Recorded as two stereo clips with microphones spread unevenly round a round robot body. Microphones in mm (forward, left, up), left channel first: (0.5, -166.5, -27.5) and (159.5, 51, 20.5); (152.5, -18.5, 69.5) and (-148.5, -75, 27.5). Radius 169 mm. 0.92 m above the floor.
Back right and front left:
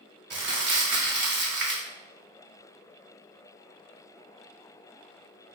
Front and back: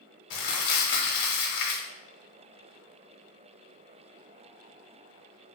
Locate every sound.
0.3 s crumpling: straight ahead, 1.0 m